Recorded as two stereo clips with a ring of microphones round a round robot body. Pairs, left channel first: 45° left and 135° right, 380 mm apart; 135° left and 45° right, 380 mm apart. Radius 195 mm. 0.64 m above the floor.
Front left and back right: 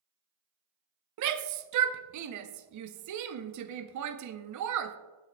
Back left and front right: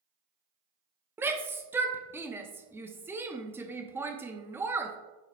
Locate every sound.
1.2 s a shout: 125° right, 0.6 m